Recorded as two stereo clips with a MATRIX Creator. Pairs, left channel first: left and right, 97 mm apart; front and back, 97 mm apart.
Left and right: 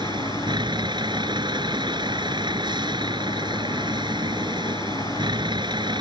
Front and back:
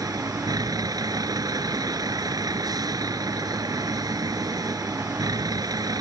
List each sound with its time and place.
0.0 s a vehicle: 130° right